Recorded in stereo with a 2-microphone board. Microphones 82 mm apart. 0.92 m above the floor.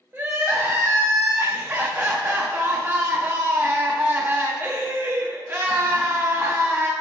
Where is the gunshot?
No gunshot in this recording.